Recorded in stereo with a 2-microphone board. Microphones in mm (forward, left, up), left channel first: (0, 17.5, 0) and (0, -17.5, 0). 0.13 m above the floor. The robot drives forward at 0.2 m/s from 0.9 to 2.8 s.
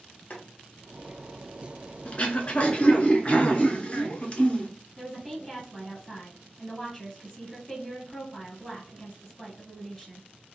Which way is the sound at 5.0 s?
10° left (ahead or behind).